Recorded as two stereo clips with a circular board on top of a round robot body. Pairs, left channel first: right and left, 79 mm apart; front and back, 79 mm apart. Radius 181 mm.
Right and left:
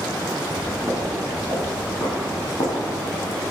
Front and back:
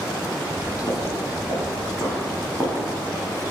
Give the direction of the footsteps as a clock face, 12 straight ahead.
11 o'clock.